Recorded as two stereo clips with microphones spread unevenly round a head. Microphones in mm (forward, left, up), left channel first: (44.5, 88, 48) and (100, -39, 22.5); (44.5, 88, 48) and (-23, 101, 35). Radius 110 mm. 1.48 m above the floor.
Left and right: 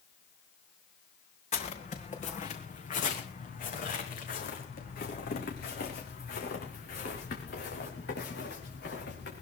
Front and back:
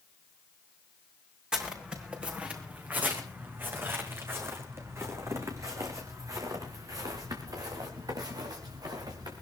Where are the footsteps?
85° left, 4 m; by 9.4 s 145° left, 6 m.